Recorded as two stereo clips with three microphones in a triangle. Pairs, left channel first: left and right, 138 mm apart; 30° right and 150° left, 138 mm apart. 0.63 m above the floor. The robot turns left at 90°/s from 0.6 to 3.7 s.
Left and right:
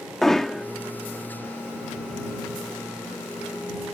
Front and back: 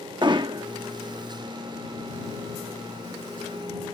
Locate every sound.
0.2 s hammering: 175° left; by 0.7 s 170° left